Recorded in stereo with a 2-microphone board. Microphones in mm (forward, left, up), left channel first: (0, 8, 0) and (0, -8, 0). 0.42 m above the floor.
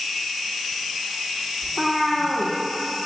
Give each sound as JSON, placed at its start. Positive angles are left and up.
{"t": 1.6, "sound": "a cat meowing", "side_deg": 40, "distance_m": 1.7}